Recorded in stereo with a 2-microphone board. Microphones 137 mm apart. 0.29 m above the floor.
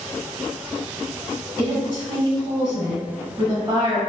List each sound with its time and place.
1.6 s a woman speaking: 30° right (ahead or behind), 1.5 m